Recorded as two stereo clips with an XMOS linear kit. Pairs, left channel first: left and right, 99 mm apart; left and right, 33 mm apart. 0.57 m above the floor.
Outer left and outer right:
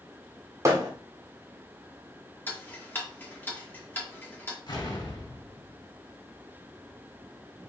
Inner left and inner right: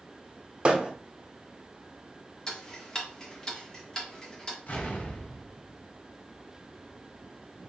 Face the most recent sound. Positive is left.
turn(degrees=50)  # may be behind; listen again after turning